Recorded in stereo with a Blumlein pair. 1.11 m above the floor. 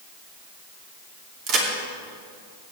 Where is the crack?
35° right, 2.5 m.